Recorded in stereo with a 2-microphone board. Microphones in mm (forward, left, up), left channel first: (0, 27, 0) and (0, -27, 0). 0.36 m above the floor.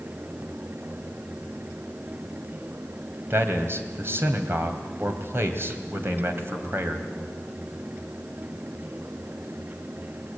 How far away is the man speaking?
About 2.5 m.